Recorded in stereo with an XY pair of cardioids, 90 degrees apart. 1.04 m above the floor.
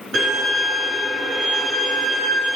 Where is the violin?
65° right, 3 m.